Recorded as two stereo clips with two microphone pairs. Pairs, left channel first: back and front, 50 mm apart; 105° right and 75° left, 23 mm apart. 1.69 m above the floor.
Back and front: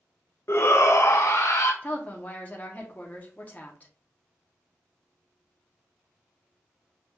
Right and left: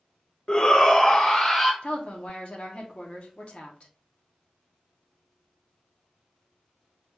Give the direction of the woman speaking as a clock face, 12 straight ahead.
4 o'clock.